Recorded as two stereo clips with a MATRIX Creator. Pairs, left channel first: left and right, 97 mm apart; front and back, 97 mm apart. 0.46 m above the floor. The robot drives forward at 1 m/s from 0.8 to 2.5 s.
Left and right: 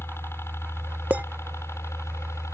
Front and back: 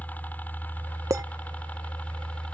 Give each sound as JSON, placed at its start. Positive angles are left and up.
{"t": 0.0, "sound": "a helicopter", "azimuth_deg": 55}
{"t": 1.1, "sound": "a clink", "azimuth_deg": -150}